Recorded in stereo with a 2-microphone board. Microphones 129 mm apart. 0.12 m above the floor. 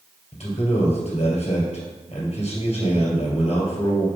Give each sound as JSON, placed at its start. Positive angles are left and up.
{"t": 0.3, "sound": "a man speaking", "side_deg": 55, "distance_m": 2.5}